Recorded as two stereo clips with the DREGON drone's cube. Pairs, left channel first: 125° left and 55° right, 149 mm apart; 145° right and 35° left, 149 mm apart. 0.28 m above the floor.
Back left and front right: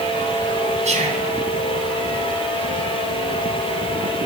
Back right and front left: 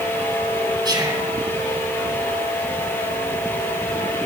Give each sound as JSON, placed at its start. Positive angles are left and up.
{"t": 0.8, "sound": "whispering", "azimuth_deg": -25, "distance_m": 3.0}